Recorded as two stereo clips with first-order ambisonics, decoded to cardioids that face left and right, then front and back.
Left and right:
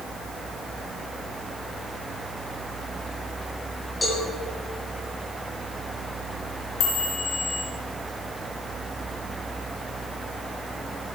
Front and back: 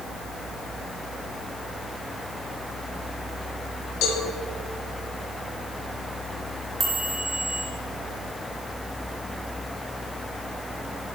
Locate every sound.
4.0 s a cowbell: 15° left, 2.0 m
6.8 s a chime: 110° left, 1.5 m